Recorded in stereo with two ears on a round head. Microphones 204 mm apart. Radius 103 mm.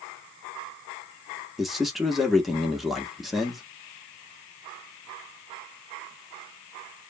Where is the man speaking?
Centre (ahead or behind), 0.7 m.